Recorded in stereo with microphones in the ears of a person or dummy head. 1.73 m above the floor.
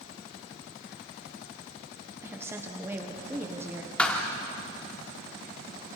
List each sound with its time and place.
2.2 s a woman speaking: 15° right (ahead or behind), 1.4 m
4.0 s a thud: 10° left (ahead or behind), 2 m